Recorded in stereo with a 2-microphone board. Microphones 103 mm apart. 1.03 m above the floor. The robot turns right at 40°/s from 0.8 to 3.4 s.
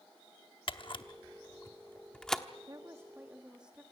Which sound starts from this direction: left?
A camera shutter, at 0.7 s.